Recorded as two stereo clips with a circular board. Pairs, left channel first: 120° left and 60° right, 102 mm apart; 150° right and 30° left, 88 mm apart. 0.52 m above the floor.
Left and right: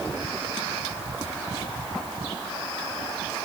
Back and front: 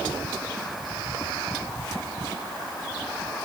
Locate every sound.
Only background noise.